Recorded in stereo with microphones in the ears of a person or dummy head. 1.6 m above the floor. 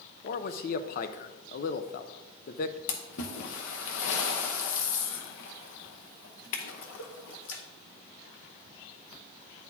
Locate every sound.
0.2 s a man speaking: 50° left (ahead or behind), 0.6 m
2.9 s a splash: 75° left (ahead or behind), 0.9 m